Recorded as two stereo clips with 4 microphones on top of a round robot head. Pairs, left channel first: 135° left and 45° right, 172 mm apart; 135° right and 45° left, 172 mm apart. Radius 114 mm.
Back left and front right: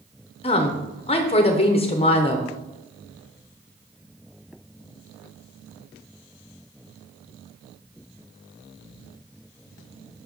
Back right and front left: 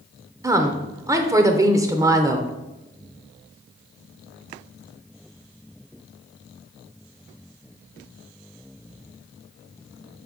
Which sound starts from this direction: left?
A woman speaking, at 0.4 s.